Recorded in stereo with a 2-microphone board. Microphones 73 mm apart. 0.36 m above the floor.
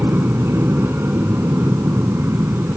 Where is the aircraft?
30° right (ahead or behind).